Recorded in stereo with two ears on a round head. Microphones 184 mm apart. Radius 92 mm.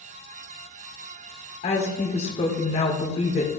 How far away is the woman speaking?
About 1.7 m.